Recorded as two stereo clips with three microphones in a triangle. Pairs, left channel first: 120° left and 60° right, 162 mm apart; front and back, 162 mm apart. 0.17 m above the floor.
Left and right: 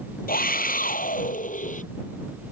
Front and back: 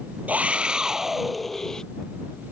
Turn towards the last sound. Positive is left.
turn(degrees=85)